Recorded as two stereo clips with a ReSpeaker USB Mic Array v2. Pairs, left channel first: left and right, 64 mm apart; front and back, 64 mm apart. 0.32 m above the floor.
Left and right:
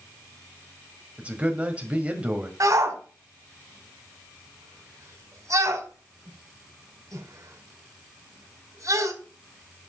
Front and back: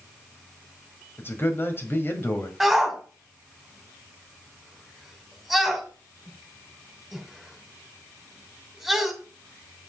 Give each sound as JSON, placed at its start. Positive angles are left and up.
{"t": 1.2, "sound": "a man speaking", "azimuth_deg": -30, "distance_m": 1.8}
{"t": 2.6, "sound": "a shout", "azimuth_deg": -90, "distance_m": 2.5}